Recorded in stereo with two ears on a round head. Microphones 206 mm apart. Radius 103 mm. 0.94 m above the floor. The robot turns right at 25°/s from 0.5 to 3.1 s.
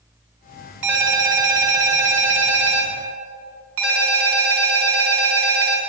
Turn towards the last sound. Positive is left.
turn(degrees=-70)